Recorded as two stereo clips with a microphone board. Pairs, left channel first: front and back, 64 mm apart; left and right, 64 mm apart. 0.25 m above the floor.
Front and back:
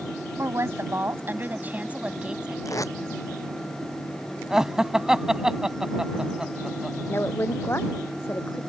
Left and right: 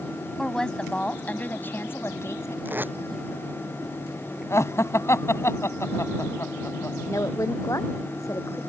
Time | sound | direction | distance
0.4 | a woman speaking | 170° left | ?
2.6 | tape being pulled | 30° right | ?
4.5 | laughter | 105° left | ?
7.1 | a woman speaking | 55° left | ?